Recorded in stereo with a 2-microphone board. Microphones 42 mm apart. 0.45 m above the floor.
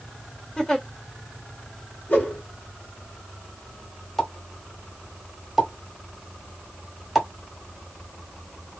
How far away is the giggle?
About 1.3 m.